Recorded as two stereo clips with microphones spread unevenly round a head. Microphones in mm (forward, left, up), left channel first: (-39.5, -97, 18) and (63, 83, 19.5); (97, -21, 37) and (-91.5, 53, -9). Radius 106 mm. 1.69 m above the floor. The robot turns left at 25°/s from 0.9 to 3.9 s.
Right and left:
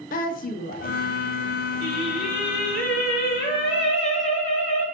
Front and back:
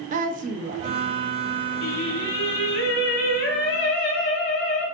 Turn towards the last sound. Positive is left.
turn(degrees=-65)